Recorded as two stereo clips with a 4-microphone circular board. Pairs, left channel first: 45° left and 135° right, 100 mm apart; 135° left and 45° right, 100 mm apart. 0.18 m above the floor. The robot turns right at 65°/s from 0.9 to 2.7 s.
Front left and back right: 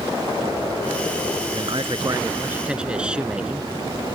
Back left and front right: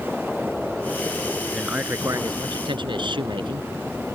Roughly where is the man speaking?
Behind right.